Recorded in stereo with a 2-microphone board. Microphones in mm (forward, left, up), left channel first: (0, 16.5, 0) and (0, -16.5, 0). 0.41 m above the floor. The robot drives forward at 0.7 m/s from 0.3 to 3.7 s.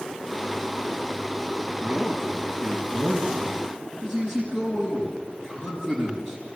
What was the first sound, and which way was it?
A man speaking, 25° left (ahead or behind).